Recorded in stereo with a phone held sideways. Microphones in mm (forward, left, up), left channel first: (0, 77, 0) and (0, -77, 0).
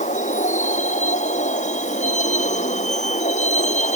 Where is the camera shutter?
I don't hear a camera shutter.